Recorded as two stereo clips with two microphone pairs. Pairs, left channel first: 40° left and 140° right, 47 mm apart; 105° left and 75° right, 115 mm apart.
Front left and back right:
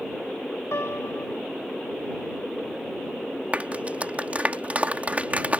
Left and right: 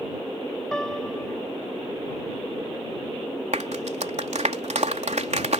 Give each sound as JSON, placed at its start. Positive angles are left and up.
{"t": 0.7, "sound": "a piano", "azimuth_deg": 25}
{"t": 3.5, "sound": "a clap", "azimuth_deg": -80}